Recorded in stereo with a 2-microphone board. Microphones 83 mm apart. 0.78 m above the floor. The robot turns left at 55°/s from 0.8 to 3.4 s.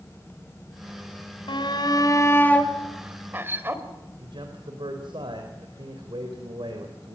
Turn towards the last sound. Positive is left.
turn(degrees=-75)  # may be behind; listen again after turning